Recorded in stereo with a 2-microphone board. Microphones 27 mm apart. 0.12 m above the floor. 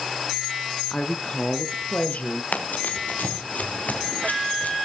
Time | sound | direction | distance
0.9 | a woman speaking | 35° left (ahead or behind) | 1.2 m
2.5 | running footsteps | 80° left | 2 m